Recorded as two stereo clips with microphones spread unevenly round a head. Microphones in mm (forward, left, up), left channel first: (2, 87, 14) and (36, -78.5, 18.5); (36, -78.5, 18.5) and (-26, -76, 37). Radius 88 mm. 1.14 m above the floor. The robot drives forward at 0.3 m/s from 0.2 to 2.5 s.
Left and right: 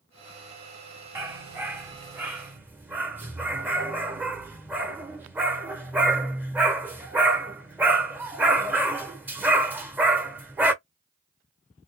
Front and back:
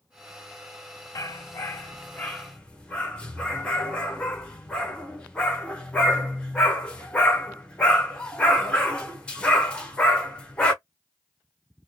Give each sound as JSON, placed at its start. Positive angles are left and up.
{"t": 1.1, "sound": "a dog barking", "azimuth_deg": -20, "distance_m": 0.8}